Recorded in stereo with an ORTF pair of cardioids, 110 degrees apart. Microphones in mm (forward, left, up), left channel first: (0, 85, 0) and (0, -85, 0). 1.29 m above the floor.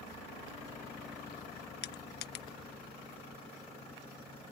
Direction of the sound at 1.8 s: 70° left.